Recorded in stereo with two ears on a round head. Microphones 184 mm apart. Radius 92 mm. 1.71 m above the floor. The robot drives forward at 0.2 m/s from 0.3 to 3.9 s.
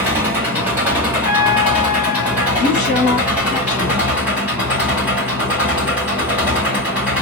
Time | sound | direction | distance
0.0 | an engine running | 10° right (ahead or behind) | 1.6 m
1.2 | a trumpet | 45° left (ahead or behind) | 0.8 m
2.6 | a woman speaking | 45° left (ahead or behind) | 1.1 m